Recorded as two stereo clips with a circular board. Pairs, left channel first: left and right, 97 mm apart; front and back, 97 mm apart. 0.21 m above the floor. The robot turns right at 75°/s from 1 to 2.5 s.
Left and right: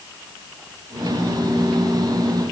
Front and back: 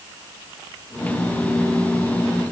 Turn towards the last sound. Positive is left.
No sound to turn to.